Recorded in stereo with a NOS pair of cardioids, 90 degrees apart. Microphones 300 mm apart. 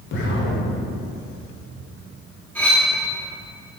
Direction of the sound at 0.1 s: 45° left.